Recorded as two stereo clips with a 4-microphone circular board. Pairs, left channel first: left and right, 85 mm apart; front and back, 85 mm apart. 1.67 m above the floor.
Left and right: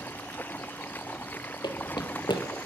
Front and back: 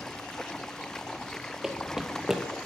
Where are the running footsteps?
95° left, 3.5 m.